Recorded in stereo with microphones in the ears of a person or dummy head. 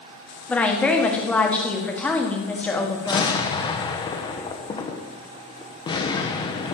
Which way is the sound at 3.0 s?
25° left (ahead or behind).